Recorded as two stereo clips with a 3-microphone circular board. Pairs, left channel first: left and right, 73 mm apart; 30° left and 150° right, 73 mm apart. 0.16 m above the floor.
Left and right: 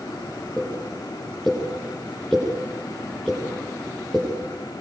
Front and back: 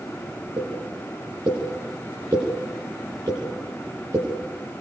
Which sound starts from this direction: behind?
A pop, at 0.6 s.